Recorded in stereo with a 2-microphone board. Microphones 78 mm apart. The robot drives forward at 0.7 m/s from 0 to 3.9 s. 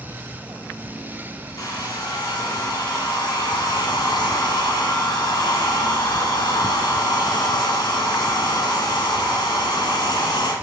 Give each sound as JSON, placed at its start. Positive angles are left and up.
{"t": 1.6, "sound": "a hair dryer", "side_deg": 55, "distance_m": 3.0}